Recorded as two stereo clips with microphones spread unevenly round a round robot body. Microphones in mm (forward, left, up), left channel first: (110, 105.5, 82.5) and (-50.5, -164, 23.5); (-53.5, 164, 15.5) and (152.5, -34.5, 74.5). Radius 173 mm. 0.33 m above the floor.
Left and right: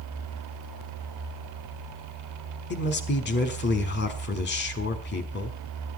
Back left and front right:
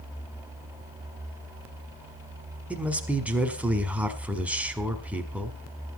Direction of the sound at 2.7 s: 65° left.